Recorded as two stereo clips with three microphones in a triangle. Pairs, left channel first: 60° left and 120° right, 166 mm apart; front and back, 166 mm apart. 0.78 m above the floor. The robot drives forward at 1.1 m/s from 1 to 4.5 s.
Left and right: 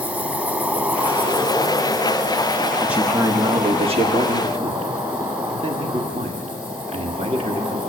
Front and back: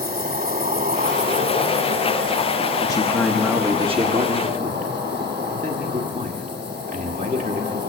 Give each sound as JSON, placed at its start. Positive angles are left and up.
{"t": 0.0, "sound": "an insect", "azimuth_deg": 160, "distance_m": 1.1}
{"t": 2.8, "sound": "a man speaking", "azimuth_deg": -40, "distance_m": 1.2}